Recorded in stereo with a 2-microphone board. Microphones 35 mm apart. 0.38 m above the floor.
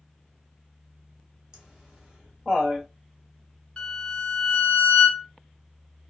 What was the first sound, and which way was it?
Laughter, 25° right (ahead or behind).